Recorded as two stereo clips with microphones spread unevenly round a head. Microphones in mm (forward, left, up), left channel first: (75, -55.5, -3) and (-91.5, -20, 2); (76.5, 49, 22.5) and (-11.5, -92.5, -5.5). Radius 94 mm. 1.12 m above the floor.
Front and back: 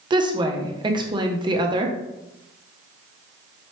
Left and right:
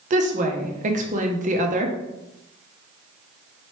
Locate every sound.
0.1 s a woman speaking: 135° right, 0.7 m